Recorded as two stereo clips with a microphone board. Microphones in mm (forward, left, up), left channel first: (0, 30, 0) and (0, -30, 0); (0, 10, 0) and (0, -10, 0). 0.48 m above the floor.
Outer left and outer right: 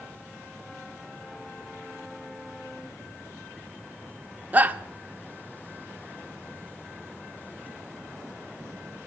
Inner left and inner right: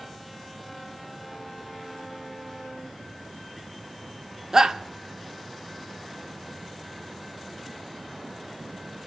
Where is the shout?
30° right (ahead or behind), 0.8 m.